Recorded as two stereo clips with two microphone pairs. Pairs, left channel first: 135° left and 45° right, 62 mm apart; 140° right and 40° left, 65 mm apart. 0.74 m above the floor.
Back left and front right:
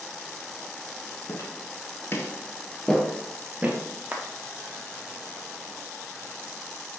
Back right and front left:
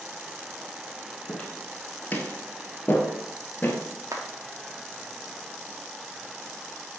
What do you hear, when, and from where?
1.3 s footsteps: 150° left, 1.3 m; by 3.8 s 95° right, 0.9 m
4.1 s a clap: 20° left, 1.0 m